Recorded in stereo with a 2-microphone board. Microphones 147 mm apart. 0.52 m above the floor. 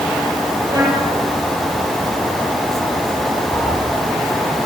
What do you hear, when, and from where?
0.7 s a trumpet: 20° right (ahead or behind), 9.5 m
3.5 s a cat meowing: 10° left (ahead or behind), 5.5 m